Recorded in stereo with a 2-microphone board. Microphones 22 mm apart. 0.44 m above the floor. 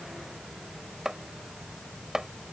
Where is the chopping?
20° right (ahead or behind).